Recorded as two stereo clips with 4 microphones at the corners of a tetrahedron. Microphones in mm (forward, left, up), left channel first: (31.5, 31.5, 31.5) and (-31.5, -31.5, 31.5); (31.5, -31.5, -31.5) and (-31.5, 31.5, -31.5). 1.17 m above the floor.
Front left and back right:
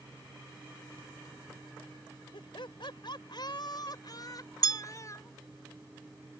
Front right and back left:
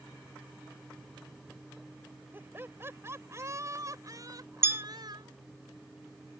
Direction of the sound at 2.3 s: 70° left.